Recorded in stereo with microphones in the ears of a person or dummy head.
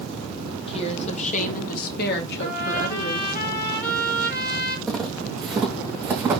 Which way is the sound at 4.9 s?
10° left (ahead or behind).